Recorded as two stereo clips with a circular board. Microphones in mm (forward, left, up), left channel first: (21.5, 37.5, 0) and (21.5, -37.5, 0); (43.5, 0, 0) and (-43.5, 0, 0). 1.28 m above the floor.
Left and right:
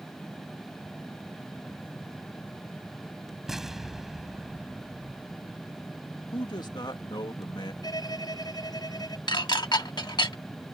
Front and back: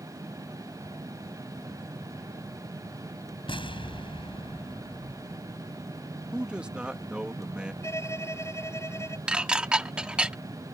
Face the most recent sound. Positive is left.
turn(degrees=100)